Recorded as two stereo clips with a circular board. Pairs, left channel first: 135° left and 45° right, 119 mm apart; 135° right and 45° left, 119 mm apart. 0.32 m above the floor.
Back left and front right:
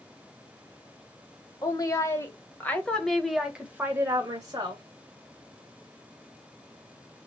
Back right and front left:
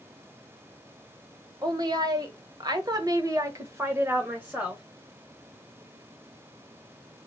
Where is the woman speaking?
85° left, 1.5 m; by 4.8 s 30° right, 1.2 m.